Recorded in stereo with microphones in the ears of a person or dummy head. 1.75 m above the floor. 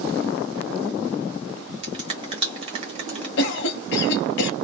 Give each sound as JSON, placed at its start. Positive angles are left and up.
{"t": 1.8, "sound": "a finger snap", "side_deg": -35, "distance_m": 1.0}
{"t": 3.4, "sound": "a cough", "side_deg": 60, "distance_m": 0.7}